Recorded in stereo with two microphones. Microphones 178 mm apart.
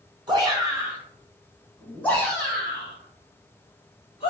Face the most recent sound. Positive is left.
turn(degrees=40)  # may be behind; listen again after turning